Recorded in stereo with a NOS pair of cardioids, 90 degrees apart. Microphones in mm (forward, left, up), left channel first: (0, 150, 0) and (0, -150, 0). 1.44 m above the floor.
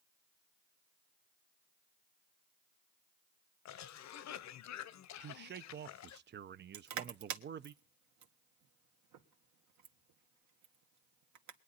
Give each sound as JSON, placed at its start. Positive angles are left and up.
{"t": 3.6, "sound": "a cough", "azimuth_deg": 70, "distance_m": 1.0}
{"t": 5.2, "sound": "a man speaking", "azimuth_deg": -40, "distance_m": 0.5}
{"t": 6.7, "sound": "crushing", "azimuth_deg": -70, "distance_m": 1.7}